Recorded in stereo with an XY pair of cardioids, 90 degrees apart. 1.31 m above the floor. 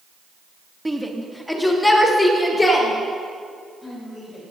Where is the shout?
5° right, 1.5 m; by 4.5 s 45° left, 5 m.